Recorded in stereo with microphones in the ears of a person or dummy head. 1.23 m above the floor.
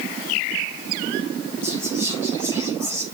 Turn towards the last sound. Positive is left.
turn(degrees=20)  # may be behind; listen again after turning